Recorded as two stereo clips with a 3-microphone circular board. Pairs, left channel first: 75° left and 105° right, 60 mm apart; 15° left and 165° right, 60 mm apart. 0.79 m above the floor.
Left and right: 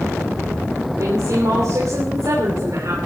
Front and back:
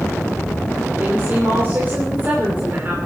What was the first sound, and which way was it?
A woman speaking, 115° right.